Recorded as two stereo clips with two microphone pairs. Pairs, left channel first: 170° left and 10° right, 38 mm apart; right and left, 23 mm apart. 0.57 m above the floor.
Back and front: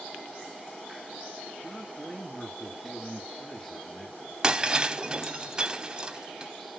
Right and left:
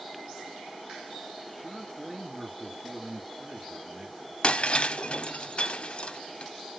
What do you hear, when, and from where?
1.6 s a man speaking: 140° left, 1.3 m
4.4 s breaking glass: 70° right, 0.5 m